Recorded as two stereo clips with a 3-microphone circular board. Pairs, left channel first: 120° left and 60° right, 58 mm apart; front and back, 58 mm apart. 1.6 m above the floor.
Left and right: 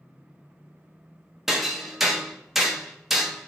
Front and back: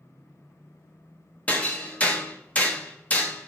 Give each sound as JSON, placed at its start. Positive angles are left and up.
{"t": 1.5, "sound": "hammering", "azimuth_deg": 20, "distance_m": 0.9}